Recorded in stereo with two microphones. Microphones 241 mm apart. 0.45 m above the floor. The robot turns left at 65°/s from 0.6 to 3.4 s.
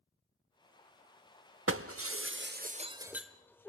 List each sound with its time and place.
1.7 s breaking glass: 60° right (ahead or behind), 0.6 m; by 3.7 s 10° left (ahead or behind), 0.6 m